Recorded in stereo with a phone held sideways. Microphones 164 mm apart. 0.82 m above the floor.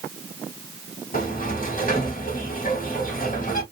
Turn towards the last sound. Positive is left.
turn(degrees=55)  # may be behind; listen again after turning